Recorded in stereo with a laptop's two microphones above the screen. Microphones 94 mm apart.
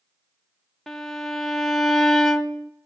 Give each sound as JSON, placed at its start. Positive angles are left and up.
{"t": 0.9, "sound": "a violin", "side_deg": 5, "distance_m": 0.6}